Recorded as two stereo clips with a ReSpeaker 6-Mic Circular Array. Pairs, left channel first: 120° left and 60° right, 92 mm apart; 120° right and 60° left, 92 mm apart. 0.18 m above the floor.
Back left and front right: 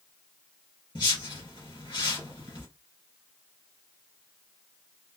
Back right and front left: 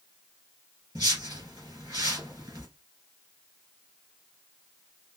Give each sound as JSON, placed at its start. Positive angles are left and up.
{"t": 0.9, "sound": "a whoosh", "azimuth_deg": 100, "distance_m": 3.5}